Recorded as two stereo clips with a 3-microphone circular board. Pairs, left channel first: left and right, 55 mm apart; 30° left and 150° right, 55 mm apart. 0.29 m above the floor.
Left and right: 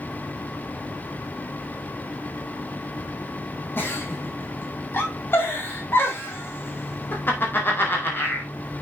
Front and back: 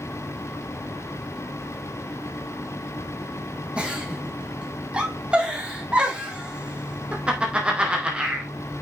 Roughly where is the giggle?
Behind left.